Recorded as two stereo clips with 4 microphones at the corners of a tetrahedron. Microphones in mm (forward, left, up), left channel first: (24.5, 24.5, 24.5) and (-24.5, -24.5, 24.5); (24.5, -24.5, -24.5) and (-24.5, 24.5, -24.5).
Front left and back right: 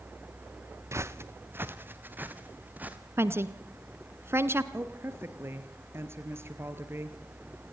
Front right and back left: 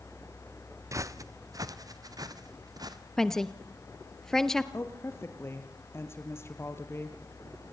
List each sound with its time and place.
0.9 s footsteps: 175° left, 1.2 m; by 3.0 s 160° left, 3 m
3.2 s a woman speaking: 125° right, 1.3 m
4.7 s a woman speaking: 90° right, 2.5 m